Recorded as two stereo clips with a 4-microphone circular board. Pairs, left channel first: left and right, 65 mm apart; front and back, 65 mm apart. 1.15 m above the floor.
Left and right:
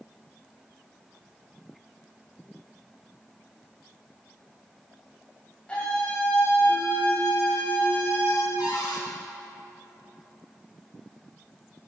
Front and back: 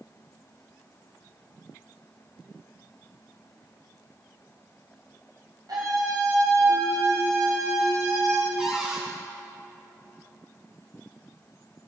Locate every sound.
5.7 s a scream: 165° left, 5.5 m; by 8.5 s 140° left, 4 m
8.6 s a cupboard door: 100° left, 4.5 m